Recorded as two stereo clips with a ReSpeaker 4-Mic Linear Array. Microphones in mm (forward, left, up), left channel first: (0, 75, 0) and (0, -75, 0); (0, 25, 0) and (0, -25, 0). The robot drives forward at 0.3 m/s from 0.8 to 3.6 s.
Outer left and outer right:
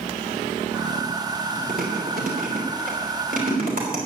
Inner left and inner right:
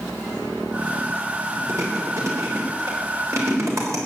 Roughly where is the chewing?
Right.